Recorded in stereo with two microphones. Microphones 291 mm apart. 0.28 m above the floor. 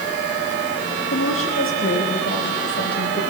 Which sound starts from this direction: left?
A woman speaking, at 1.1 s.